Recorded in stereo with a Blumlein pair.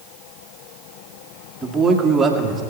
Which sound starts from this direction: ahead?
A man speaking, at 1.6 s.